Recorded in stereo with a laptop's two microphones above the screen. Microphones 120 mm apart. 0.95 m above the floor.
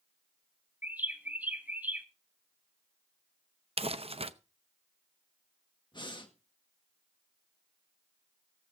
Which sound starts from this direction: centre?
A bird, at 0.8 s.